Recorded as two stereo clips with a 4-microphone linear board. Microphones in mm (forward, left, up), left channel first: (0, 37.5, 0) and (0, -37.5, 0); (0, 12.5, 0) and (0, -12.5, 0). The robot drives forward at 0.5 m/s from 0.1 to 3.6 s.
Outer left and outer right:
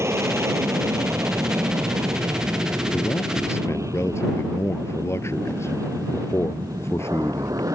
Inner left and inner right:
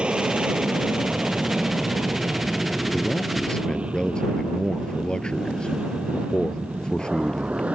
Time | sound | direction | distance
0.0 | an aircraft | 35° right (ahead or behind) | ?
2.9 | a man speaking | 40° left (ahead or behind) | ?